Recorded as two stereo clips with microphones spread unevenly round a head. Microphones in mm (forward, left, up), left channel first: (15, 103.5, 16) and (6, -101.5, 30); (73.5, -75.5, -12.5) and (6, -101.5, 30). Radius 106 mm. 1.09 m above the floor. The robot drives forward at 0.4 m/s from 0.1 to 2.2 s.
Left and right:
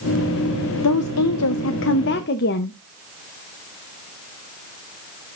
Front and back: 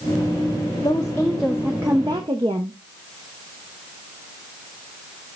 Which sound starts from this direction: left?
A woman speaking, at 0.8 s.